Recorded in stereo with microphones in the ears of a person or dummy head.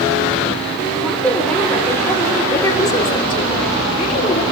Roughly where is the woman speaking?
Centre.